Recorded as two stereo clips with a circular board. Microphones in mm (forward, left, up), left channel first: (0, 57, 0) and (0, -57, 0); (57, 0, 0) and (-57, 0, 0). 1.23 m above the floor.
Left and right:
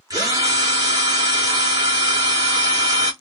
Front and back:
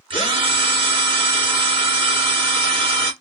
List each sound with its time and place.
0.1 s a drill: 145° right, 1.4 m